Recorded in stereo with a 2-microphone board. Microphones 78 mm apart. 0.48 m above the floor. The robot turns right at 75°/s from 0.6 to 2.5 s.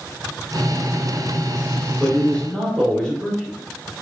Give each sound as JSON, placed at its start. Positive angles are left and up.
{"t": 2.0, "sound": "a man speaking", "side_deg": 20, "distance_m": 0.9}